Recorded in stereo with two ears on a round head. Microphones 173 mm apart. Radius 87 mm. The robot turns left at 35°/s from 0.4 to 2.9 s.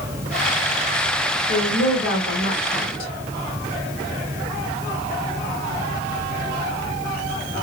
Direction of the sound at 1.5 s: 85° left.